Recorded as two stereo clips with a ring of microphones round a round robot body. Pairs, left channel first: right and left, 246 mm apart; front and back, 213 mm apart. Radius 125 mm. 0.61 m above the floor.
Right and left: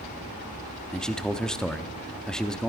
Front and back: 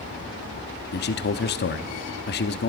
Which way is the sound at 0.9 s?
5° right.